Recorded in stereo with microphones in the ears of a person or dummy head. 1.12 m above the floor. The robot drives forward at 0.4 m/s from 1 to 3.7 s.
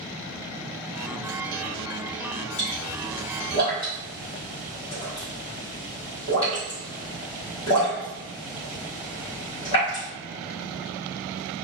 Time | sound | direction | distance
2.6 | a pop | 40° left (ahead or behind) | 1.3 m